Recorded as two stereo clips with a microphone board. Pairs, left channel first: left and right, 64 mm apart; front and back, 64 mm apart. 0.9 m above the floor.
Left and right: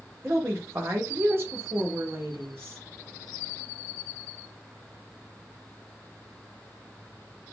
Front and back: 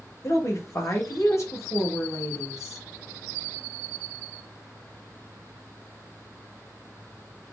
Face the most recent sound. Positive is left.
turn(degrees=-40)